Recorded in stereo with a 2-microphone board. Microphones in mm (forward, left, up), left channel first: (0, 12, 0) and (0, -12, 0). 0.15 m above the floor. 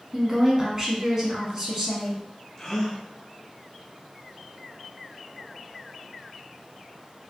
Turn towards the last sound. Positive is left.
turn(degrees=20)  # may be behind; listen again after turning